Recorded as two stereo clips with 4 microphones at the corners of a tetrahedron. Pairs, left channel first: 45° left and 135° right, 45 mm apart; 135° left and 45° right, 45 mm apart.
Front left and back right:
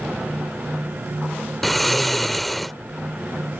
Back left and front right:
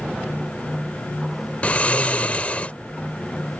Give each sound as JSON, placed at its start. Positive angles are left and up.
{"t": 1.6, "sound": "snoring", "azimuth_deg": 130}